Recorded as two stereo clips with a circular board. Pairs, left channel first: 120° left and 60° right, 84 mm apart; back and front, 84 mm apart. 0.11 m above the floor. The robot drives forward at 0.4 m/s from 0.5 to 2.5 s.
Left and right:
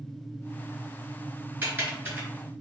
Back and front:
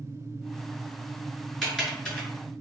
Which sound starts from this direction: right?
Typing on a keyboard, at 1.6 s.